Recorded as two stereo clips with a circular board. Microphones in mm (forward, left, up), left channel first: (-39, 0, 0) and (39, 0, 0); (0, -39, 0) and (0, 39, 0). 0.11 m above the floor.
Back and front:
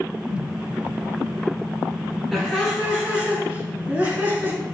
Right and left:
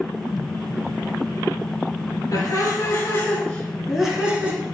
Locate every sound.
2.3 s laughter: 80° right, 1.6 m; by 4.6 s 45° left, 1.2 m